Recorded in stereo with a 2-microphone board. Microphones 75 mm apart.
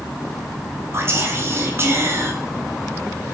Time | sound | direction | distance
0.9 | whispering | 35° right (ahead or behind) | 0.7 m